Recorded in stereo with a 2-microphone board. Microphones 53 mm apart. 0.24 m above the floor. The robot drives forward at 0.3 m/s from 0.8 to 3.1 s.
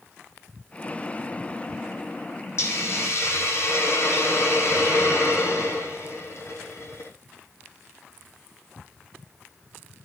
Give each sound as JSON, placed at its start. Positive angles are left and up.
{"t": 2.6, "sound": "a hiss", "side_deg": 60, "distance_m": 4.5}